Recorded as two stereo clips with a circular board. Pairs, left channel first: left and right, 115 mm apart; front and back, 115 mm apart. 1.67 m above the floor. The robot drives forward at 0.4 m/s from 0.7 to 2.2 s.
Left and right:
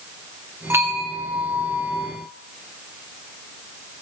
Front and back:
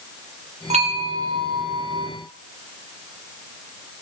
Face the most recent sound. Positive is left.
turn(degrees=-165)